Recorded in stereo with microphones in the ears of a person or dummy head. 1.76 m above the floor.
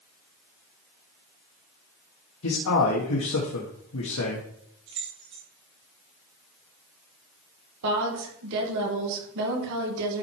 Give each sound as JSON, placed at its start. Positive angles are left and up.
{"t": 2.4, "sound": "a man speaking", "side_deg": 80, "distance_m": 1.7}
{"t": 4.9, "sound": "keys jangling", "side_deg": -15, "distance_m": 0.7}
{"t": 7.8, "sound": "a woman speaking", "side_deg": -65, "distance_m": 2.0}